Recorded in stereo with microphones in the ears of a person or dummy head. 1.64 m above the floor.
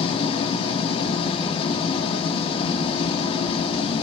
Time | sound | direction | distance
0.0 | an engine running | 35° left (ahead or behind) | 3 m